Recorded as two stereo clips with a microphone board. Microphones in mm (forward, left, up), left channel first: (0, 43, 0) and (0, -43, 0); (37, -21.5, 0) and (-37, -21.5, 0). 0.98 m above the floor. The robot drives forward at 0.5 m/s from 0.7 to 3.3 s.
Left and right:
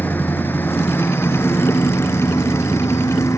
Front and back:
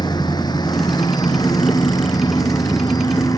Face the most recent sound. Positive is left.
turn(degrees=35)